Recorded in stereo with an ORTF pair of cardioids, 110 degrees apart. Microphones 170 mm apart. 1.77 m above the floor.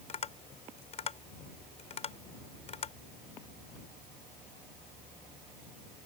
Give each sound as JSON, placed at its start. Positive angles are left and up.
{"t": 0.1, "sound": "tapping", "azimuth_deg": 40}